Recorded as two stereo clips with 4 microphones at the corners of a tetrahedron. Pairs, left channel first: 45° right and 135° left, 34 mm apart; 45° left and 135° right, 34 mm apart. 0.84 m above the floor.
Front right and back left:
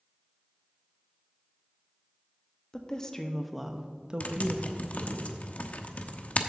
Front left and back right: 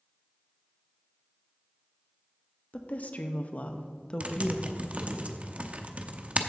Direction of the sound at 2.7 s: 15° left.